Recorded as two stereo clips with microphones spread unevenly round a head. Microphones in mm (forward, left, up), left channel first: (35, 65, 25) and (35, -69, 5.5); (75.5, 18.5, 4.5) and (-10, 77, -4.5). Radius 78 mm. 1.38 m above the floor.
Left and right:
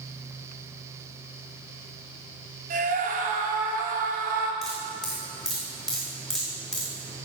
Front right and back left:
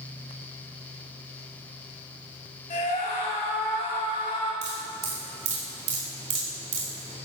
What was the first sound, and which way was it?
A scream, 75° right.